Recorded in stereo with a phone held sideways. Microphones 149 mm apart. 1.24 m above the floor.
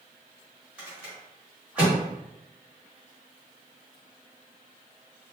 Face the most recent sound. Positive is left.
turn(degrees=-5)  # may be behind; listen again after turning